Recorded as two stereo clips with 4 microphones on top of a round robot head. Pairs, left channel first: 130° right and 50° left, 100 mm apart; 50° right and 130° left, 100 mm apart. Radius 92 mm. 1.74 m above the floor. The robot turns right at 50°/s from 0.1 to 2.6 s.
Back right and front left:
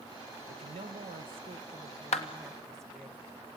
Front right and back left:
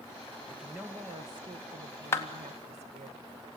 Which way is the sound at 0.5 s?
40° left.